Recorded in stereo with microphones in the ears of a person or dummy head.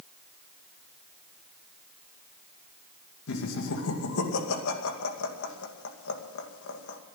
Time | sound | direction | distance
3.3 | laughter | 65° left (ahead or behind) | 2.5 m